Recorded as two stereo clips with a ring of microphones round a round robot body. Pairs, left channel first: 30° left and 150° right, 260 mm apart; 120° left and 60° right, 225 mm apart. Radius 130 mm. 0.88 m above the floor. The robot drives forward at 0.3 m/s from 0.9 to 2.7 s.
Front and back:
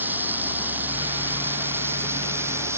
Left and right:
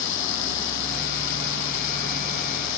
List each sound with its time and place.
0.0 s running water: 125° left; by 2.8 s 130° left